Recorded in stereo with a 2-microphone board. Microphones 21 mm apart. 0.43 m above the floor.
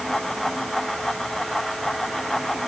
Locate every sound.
Only background noise.